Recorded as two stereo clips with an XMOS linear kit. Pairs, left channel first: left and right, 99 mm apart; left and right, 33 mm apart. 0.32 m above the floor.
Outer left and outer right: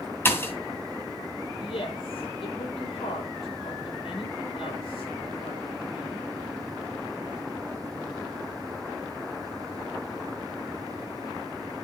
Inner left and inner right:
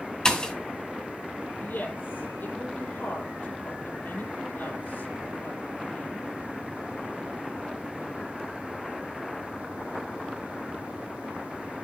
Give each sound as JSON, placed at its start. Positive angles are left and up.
{"t": 0.2, "sound": "a pop", "side_deg": 25, "distance_m": 2.0}
{"t": 1.6, "sound": "a woman speaking", "side_deg": 65, "distance_m": 7.0}